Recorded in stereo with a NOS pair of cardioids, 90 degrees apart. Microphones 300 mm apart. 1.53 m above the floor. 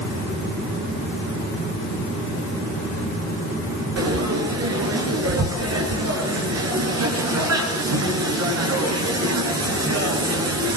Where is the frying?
55° right, 10 m.